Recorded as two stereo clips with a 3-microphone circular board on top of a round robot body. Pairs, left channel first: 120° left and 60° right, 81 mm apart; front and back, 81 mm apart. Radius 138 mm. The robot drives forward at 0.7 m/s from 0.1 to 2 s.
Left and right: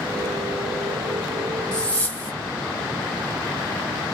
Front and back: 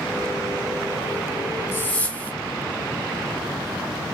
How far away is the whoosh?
About 1.2 m.